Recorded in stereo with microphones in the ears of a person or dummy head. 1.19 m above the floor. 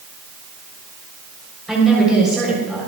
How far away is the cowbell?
I don't hear a cowbell.